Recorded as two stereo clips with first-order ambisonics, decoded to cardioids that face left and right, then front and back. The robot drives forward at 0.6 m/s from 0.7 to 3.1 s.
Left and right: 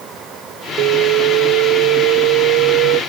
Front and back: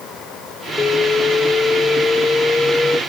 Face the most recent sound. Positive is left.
turn(degrees=-80)